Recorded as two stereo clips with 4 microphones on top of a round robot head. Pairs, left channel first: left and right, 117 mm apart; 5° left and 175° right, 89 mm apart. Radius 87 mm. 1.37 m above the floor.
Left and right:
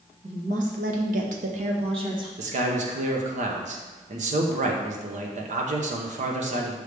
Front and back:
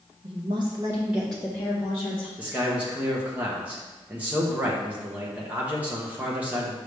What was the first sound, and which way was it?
A woman speaking, 135° right.